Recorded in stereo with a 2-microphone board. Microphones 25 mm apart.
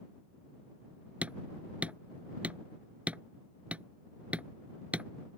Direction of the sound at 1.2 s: 70° right (ahead or behind).